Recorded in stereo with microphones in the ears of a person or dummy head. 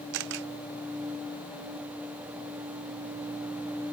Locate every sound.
0.1 s a camera shutter: 70° right (ahead or behind)